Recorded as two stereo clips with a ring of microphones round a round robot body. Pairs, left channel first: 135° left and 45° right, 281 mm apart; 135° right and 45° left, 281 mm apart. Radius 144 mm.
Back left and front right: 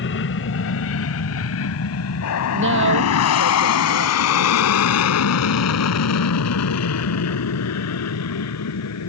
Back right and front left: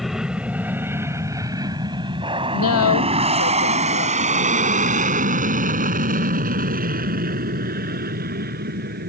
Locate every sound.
0.0 s an aircraft: 135° left; by 9.1 s 105° left
2.5 s a woman speaking: 95° right